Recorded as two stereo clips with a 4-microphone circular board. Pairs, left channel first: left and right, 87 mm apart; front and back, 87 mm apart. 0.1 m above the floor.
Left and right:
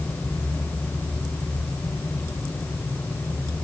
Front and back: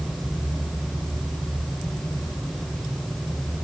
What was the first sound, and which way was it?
Only background noise.